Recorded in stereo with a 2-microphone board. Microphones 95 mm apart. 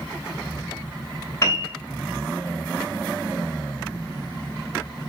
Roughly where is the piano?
Left.